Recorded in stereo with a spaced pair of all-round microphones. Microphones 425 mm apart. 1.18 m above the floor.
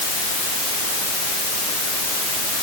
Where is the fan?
No fan in this recording.